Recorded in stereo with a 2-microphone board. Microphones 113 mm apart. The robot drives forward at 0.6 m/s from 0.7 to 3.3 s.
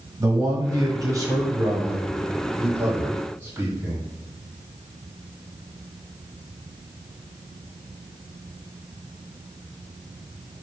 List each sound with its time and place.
0.2 s a man speaking: 30° right (ahead or behind), 1.3 m; by 4.0 s 20° right (ahead or behind), 2 m